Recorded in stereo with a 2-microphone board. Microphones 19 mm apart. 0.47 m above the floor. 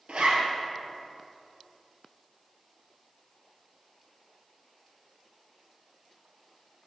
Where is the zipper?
85° right, 2 m.